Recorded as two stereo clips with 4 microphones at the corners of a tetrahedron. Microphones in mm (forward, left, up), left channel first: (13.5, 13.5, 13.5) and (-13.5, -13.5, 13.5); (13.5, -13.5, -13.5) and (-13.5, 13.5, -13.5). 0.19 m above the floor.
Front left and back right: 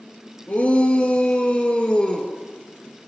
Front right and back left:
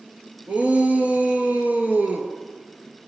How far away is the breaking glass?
I don't hear breaking glass.